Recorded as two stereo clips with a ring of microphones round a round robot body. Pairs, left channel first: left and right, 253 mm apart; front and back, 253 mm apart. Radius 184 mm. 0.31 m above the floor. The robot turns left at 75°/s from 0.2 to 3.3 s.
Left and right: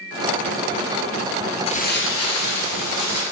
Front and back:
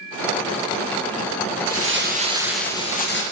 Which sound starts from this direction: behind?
Crumpling, at 1.7 s.